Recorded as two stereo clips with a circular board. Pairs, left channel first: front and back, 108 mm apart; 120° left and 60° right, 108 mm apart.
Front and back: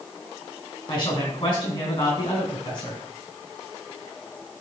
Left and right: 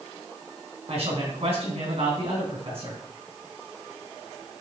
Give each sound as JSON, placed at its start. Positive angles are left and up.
{"t": 0.9, "sound": "a man speaking", "azimuth_deg": -50, "distance_m": 3.5}